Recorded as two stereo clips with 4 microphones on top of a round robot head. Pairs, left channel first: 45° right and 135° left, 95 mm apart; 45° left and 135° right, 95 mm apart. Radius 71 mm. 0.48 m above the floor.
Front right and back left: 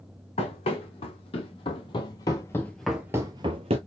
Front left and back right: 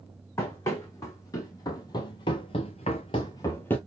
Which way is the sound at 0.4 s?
20° right.